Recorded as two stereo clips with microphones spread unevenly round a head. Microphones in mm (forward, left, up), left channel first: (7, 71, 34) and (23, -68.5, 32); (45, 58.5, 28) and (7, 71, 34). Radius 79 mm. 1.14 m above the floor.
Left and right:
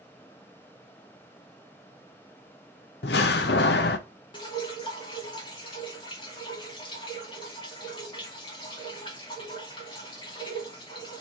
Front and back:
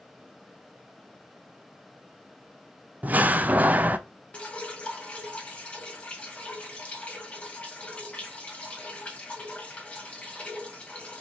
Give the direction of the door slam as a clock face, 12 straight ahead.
8 o'clock.